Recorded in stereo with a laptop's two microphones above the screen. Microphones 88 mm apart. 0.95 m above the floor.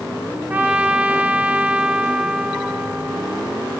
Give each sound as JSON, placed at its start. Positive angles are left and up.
{"t": 0.5, "sound": "a trumpet", "side_deg": -20, "distance_m": 0.8}